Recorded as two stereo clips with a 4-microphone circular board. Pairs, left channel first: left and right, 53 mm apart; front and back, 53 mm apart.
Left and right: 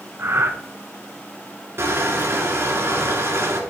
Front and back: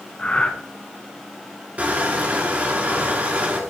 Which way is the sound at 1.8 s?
120° right.